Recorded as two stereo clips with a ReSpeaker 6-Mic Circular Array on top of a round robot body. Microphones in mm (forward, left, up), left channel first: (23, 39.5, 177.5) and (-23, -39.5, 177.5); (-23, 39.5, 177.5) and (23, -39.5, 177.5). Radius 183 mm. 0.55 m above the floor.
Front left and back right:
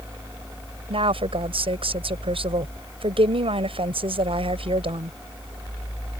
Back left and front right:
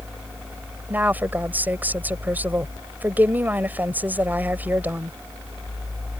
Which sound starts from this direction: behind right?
A woman speaking, at 0.9 s.